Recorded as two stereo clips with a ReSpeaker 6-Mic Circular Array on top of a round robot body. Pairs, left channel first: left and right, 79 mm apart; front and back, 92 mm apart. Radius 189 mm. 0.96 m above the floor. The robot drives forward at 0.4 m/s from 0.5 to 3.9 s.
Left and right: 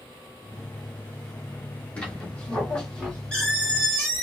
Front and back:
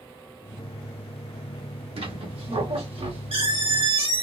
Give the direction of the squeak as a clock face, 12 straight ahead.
6 o'clock.